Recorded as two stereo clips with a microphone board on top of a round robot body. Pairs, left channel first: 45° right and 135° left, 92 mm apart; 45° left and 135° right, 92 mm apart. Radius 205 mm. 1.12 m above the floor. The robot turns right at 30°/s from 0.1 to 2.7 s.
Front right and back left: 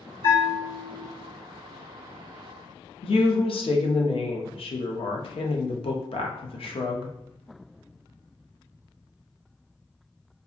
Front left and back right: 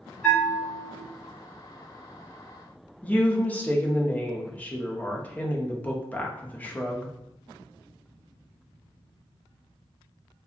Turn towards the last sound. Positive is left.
turn(degrees=-30)